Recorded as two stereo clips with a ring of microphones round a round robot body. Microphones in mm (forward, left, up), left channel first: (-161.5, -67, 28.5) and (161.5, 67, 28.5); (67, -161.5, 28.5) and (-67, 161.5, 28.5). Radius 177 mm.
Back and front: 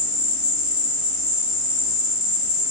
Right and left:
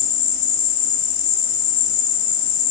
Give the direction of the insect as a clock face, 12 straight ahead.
2 o'clock.